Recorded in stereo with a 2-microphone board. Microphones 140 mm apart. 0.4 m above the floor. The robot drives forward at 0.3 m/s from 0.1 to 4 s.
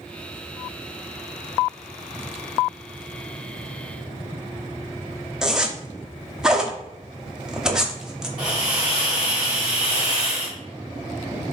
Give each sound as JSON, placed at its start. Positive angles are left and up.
{"t": 5.4, "sound": "a zipper", "side_deg": -5, "distance_m": 0.7}
{"t": 8.4, "sound": "a hiss", "side_deg": -5, "distance_m": 1.9}